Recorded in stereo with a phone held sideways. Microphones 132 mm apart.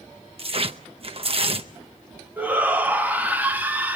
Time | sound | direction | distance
0.4 | tearing paper | 45° right (ahead or behind) | 0.7 m
2.4 | a shout | 15° right (ahead or behind) | 1.5 m